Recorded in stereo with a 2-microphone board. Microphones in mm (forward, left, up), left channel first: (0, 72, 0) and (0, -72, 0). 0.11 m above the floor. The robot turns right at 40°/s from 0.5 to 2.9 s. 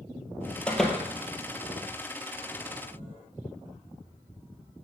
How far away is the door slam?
About 1.6 m.